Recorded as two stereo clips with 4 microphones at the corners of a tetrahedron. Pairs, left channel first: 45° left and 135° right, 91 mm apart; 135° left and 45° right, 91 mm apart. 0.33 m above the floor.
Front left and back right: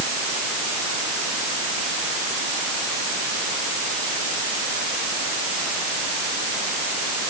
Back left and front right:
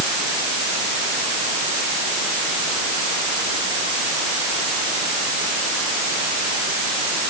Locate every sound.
Only background noise.